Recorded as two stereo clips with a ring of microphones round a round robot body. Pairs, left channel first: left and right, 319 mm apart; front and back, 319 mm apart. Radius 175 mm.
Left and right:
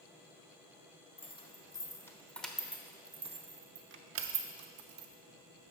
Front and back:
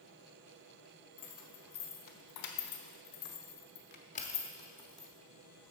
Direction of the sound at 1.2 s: 20° left.